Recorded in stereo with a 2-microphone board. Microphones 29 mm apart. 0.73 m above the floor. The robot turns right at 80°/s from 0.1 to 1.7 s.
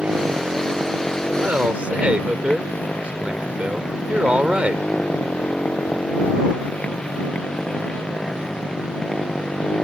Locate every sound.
0.0 s a motorcycle: 55° right (ahead or behind); by 9.8 s 35° left (ahead or behind)
1.4 s a man speaking: 65° right (ahead or behind); by 4.8 s 45° right (ahead or behind)